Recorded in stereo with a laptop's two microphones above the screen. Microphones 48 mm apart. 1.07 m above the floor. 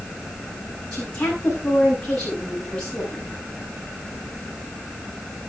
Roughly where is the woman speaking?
Centre.